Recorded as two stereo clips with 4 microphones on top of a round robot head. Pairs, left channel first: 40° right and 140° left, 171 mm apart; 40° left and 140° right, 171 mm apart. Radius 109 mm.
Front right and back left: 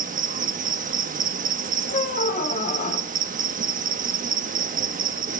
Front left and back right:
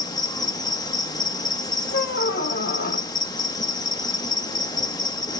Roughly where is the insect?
Left.